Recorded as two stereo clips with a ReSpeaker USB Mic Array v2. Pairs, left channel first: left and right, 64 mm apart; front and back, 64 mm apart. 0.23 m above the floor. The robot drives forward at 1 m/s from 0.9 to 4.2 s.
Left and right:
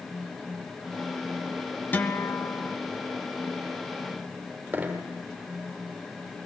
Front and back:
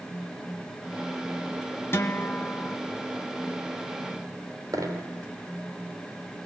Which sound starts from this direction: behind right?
A dropped coin, at 4.7 s.